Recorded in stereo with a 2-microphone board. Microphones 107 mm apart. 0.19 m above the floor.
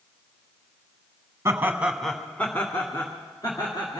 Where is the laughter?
25° right (ahead or behind), 1.1 m; by 4.0 s 40° left (ahead or behind), 2.5 m.